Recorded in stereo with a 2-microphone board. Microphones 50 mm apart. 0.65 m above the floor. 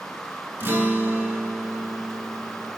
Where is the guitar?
55° right (ahead or behind), 2.5 m.